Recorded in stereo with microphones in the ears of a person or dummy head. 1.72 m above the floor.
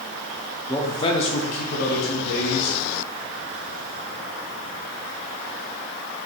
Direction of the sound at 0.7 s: 10° left (ahead or behind).